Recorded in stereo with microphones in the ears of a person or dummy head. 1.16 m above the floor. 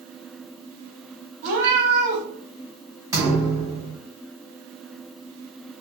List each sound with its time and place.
1.4 s a cat meowing: 55° right (ahead or behind), 1.1 m
3.1 s a thud: 20° right (ahead or behind), 1.9 m